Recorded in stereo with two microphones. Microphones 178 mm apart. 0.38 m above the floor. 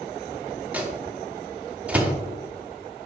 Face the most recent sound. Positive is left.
turn(degrees=-5)  # may be behind; listen again after turning